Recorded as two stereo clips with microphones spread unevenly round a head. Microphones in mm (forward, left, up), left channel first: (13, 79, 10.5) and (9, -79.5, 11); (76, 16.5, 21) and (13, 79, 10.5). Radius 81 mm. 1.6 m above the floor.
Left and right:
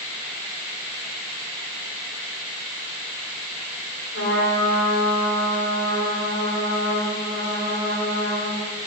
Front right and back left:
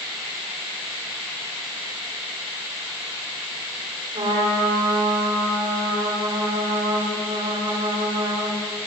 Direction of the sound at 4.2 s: 110° left.